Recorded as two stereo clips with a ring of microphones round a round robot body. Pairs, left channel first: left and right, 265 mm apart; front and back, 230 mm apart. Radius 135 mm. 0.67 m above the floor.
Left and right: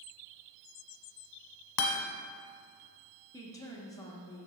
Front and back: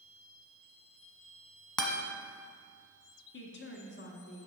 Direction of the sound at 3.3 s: 15° left.